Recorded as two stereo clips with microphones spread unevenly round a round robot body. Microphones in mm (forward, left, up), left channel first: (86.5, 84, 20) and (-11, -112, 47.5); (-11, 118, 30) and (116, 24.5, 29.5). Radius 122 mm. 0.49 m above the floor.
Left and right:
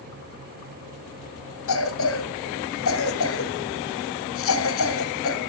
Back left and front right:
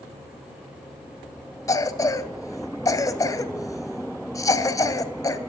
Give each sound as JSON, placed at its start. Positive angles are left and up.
{"t": 1.7, "sound": "a cough", "azimuth_deg": 75, "distance_m": 1.9}